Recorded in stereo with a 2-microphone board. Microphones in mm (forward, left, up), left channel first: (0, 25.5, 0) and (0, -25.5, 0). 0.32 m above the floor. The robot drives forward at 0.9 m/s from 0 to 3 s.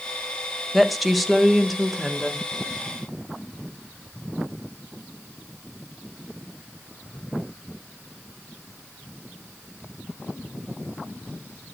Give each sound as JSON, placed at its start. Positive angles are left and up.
{"t": 0.7, "sound": "a woman speaking", "side_deg": 0, "distance_m": 1.4}